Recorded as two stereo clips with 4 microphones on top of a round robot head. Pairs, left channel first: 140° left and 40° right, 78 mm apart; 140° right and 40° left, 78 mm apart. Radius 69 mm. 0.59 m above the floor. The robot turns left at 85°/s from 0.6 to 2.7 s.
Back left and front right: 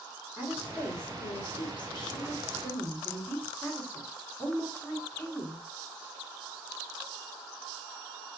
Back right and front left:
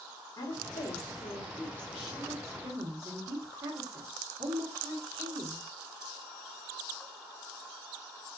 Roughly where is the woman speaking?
Right.